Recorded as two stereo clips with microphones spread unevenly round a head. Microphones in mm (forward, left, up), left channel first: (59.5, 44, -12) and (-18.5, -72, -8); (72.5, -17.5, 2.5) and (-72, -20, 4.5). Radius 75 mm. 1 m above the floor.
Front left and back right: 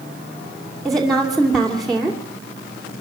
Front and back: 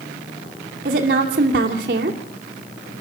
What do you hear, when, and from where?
0.8 s a woman speaking: 145° left, 2.5 m